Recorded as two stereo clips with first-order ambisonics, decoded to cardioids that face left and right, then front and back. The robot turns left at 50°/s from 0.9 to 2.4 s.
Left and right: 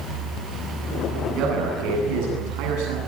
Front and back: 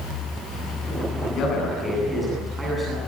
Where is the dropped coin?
No dropped coin in this recording.